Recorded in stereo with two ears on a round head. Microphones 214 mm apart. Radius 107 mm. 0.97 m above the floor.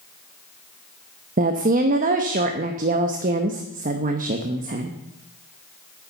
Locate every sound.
1.4 s a woman speaking: 35° right (ahead or behind), 0.8 m